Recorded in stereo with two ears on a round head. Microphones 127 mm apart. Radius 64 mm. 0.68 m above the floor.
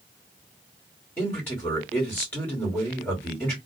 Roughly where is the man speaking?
Centre.